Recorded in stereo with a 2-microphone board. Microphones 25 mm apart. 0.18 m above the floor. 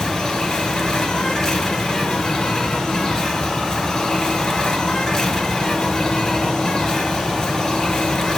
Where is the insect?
25° left (ahead or behind), 1.3 m.